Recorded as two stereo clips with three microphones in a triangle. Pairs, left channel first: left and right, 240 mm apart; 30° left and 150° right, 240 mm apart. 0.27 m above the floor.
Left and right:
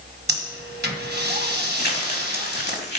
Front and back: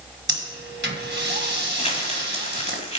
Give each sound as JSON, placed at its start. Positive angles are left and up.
{"t": 0.3, "sound": "breathing", "azimuth_deg": -120, "distance_m": 1.7}
{"t": 1.8, "sound": "crumpling", "azimuth_deg": 80, "distance_m": 2.0}